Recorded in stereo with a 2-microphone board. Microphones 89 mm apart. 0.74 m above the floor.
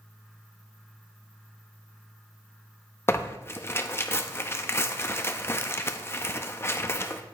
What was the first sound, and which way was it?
Tearing paper, 30° left (ahead or behind).